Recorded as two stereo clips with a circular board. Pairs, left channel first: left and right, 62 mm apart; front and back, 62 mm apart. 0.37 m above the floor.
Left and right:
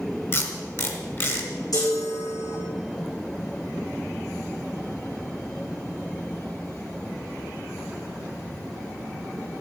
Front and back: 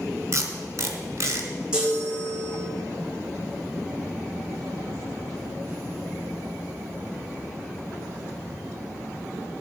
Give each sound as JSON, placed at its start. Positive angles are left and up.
{"t": 0.3, "sound": "tape being pulled", "azimuth_deg": 135, "distance_m": 1.7}
{"t": 1.7, "sound": "a chime", "azimuth_deg": 105, "distance_m": 4.5}